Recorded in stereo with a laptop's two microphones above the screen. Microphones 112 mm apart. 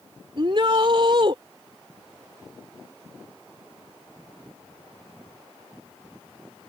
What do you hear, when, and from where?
0.4 s a shout: 50° right (ahead or behind)